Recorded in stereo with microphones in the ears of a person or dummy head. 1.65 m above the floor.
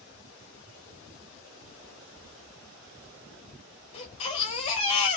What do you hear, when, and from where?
2.2 s knocking: 70° right (ahead or behind), 0.8 m
3.9 s a baby crying: 30° left (ahead or behind), 0.8 m